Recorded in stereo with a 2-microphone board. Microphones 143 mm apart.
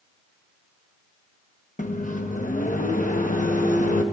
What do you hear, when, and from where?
1.8 s a microwave: 65° left (ahead or behind), 0.8 m